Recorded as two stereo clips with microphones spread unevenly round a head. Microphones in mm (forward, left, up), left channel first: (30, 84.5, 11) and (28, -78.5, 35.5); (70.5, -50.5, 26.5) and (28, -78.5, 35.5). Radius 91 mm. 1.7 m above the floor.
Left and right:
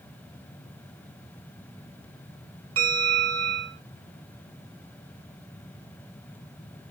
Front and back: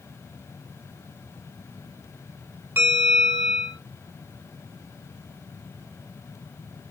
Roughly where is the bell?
Right.